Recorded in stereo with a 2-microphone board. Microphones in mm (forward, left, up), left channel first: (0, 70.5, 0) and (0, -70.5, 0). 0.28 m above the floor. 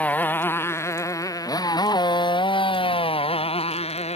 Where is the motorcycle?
10° left (ahead or behind); by 4.2 s 50° left (ahead or behind).